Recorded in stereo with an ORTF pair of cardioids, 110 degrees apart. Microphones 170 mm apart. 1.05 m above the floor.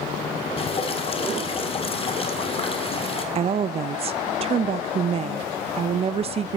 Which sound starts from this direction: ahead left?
Dripping, at 0.6 s.